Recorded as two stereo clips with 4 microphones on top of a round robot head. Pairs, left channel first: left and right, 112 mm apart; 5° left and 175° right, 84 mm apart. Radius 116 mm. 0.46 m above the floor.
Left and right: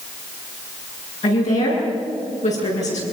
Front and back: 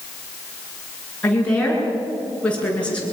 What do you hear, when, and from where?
1.2 s a woman speaking: 80° left, 9 m